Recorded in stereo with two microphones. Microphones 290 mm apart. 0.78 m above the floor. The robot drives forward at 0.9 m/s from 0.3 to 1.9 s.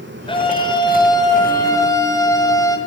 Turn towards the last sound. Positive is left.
turn(degrees=10)  # may be behind; listen again after turning